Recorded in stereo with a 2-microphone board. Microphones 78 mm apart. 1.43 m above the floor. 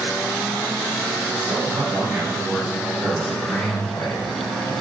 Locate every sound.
1.3 s a man speaking: 35° right (ahead or behind), 3.5 m; by 4.7 s 55° left (ahead or behind), 2.5 m